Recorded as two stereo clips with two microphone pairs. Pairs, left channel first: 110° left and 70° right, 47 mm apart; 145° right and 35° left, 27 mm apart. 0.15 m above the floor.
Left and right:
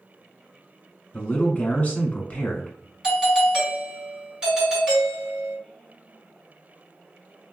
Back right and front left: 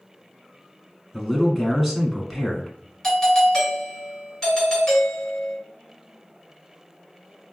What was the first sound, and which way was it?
A man speaking, 125° left.